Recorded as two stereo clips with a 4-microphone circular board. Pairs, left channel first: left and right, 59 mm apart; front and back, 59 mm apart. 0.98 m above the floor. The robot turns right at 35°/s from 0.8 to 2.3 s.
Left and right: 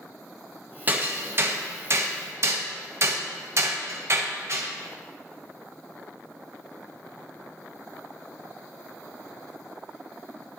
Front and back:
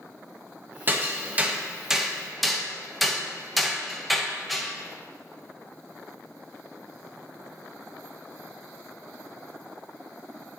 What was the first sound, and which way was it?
Hammering, 140° right.